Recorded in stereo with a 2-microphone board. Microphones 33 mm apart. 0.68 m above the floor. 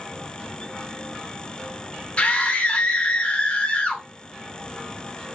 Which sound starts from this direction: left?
A scream, at 2.2 s.